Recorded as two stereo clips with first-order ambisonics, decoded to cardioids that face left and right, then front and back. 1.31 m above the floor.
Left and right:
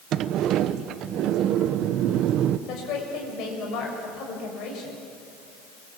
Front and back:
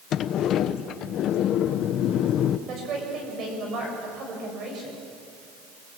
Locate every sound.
0.1 s a sliding door: 45° right, 0.8 m
2.7 s a woman speaking: 125° left, 7 m